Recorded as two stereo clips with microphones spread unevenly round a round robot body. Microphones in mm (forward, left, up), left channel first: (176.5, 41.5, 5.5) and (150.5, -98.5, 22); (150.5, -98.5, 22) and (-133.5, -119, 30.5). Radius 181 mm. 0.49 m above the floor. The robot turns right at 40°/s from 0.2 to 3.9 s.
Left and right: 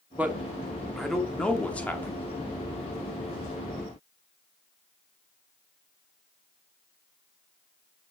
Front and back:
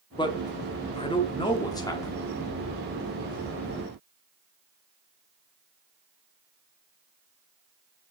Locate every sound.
0.2 s a man speaking: 20° right, 1.1 m; by 2.2 s 55° left, 1.1 m